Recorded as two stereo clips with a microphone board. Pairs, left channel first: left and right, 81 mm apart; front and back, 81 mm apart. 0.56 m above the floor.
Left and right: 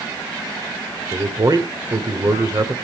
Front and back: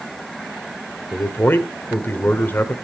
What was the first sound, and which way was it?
A man speaking, 60° right.